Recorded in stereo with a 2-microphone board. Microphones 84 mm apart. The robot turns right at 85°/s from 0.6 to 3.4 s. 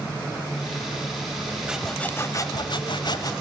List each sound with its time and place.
1.7 s sawing: 10° right, 1.2 m; by 3.3 s 125° left, 1.2 m